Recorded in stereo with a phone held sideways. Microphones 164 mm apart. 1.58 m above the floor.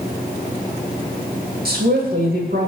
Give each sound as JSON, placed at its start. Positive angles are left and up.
{"t": 1.6, "sound": "a woman speaking", "side_deg": -80, "distance_m": 2.5}